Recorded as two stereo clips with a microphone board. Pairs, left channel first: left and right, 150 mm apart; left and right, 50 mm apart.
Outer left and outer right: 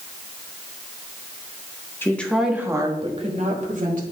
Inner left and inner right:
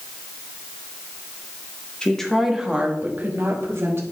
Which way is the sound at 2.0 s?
15° left (ahead or behind).